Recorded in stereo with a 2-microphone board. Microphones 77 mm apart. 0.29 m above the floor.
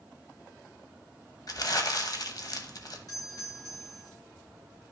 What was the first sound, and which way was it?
Crumpling, 55° left (ahead or behind).